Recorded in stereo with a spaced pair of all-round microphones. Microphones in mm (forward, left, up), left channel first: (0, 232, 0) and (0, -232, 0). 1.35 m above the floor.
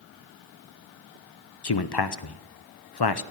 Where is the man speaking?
55° left (ahead or behind), 0.7 m.